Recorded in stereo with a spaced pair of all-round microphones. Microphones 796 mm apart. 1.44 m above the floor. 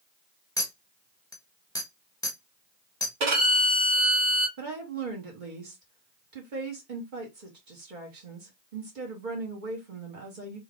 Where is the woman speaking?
75° right (ahead or behind), 1.6 m.